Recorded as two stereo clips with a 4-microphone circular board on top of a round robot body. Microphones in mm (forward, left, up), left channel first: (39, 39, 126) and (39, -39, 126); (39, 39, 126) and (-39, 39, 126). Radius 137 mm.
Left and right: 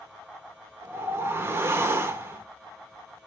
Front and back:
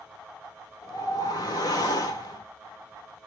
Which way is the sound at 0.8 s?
30° right.